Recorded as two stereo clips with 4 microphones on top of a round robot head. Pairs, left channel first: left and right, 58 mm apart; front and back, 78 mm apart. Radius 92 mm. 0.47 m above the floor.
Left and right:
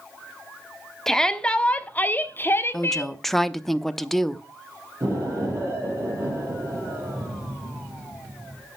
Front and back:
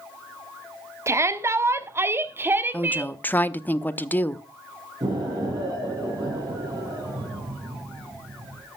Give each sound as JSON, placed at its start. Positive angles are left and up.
{"t": 1.1, "sound": "a shout", "azimuth_deg": 165, "distance_m": 1.3}
{"t": 2.7, "sound": "a woman speaking", "azimuth_deg": 10, "distance_m": 0.9}
{"t": 5.0, "sound": "an explosion", "azimuth_deg": -135, "distance_m": 6.0}